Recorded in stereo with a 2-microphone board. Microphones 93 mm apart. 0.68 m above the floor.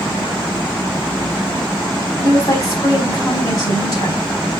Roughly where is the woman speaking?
Left.